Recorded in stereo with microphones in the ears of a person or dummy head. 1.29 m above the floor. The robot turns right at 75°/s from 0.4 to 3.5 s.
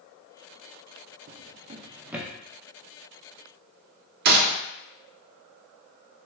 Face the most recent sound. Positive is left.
turn(degrees=-50)  # may be behind; listen again after turning